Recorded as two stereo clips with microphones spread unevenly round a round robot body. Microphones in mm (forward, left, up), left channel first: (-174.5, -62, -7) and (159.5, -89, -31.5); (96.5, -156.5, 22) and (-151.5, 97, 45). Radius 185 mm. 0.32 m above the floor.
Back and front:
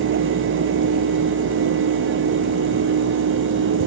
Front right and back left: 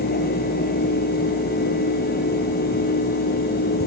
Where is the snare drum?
I don't hear a snare drum.